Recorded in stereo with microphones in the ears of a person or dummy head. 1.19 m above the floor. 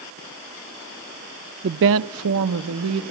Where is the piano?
I don't hear a piano.